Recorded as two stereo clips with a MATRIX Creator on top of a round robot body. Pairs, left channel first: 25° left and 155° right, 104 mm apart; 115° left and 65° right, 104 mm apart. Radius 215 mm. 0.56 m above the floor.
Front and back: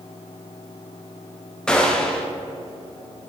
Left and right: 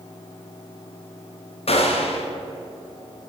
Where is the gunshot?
105° left, 1.5 m.